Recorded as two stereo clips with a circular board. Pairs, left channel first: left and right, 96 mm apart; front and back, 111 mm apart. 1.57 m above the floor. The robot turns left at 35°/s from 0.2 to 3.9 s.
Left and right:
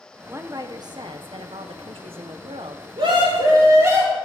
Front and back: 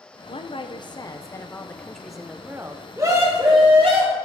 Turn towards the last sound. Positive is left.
turn(degrees=-150)